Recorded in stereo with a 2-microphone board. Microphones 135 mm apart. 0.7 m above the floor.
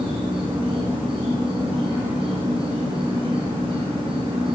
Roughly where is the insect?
Right.